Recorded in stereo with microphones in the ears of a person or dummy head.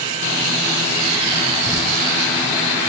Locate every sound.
1.7 s crumpling: 5° right (ahead or behind), 5.5 m